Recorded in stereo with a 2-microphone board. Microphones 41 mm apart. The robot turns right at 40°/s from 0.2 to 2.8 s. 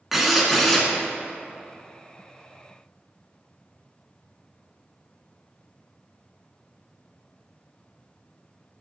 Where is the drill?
5° right (ahead or behind), 1.1 m; by 0.9 s 5° left (ahead or behind), 1.1 m.